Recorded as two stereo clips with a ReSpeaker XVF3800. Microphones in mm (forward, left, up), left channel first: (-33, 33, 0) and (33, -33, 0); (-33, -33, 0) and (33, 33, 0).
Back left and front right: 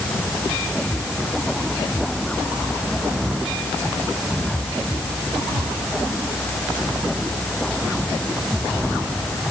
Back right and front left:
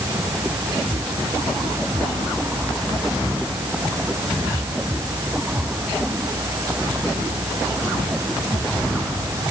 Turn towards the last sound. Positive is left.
No sound to turn to.